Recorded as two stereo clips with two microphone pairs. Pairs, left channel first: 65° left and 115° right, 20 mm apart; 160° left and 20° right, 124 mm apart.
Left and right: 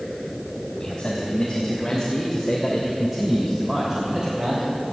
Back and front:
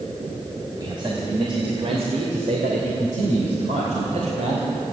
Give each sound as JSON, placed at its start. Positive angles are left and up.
{"t": 0.8, "sound": "a man speaking", "azimuth_deg": 35, "distance_m": 3.0}